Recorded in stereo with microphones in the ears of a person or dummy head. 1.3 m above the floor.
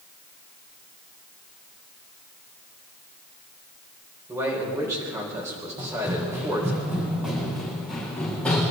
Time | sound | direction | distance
4.3 | a man speaking | 10° right (ahead or behind) | 4.5 m
5.8 | running footsteps | 15° right (ahead or behind) | 4 m